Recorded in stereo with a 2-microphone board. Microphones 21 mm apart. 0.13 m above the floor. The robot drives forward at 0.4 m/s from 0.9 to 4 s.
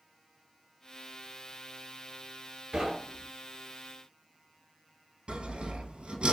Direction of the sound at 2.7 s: 35° right (ahead or behind).